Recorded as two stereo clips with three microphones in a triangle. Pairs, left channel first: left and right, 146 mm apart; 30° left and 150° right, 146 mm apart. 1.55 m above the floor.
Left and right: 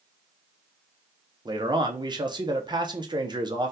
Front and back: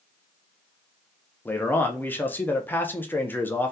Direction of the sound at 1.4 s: 45° right.